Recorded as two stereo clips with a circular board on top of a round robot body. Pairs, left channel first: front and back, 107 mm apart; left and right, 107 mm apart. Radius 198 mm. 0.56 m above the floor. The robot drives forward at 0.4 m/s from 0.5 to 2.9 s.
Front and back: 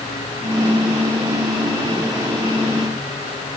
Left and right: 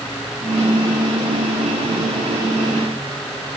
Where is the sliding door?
I don't hear a sliding door.